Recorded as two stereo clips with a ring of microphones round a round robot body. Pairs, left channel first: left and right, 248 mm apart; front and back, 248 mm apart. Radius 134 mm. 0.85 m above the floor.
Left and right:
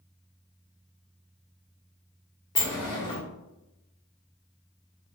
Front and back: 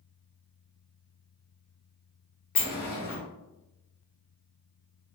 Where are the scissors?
I don't hear scissors.